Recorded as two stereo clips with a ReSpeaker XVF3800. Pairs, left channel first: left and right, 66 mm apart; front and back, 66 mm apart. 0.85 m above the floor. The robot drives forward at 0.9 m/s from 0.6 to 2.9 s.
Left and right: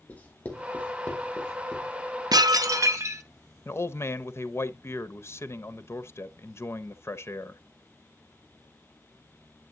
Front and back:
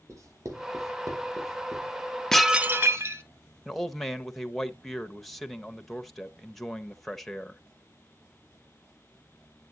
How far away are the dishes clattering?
About 0.6 m.